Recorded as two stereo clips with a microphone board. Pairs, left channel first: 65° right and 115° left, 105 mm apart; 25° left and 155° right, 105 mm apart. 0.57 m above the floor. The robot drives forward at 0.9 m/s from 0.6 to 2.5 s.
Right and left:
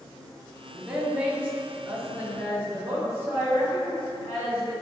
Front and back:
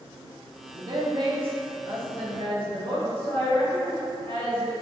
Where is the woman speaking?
175° right, 0.7 m; by 4.7 s straight behind, 2 m.